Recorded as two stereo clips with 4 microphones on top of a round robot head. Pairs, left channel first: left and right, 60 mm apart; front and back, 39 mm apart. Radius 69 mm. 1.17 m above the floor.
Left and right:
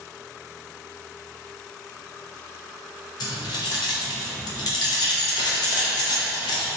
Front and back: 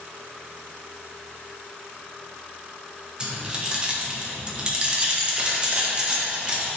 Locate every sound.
3.2 s keys jangling: 110° left, 0.5 m